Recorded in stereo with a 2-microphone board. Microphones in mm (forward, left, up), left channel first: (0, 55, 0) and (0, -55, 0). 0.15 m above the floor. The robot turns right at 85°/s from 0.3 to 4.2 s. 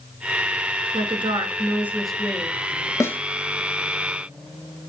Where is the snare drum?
25° left (ahead or behind), 0.8 m; by 3.2 s 10° left (ahead or behind), 0.8 m.